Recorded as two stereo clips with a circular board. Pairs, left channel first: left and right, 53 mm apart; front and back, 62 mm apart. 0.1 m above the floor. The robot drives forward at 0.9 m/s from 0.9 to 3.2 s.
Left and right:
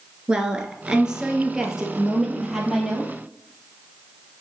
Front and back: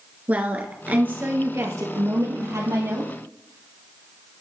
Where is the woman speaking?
150° right, 1.3 m; by 3.1 s 175° right, 3 m.